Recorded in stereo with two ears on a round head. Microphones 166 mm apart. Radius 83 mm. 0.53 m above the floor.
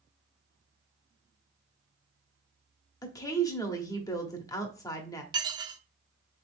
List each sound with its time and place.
3.0 s a woman speaking: 20° left (ahead or behind), 0.8 m
5.3 s dishes clattering: 25° right (ahead or behind), 0.5 m